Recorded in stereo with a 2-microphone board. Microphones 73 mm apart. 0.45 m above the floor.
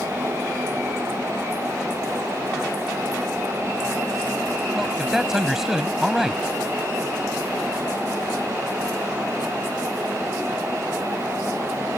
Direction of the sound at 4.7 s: 5° right (ahead or behind).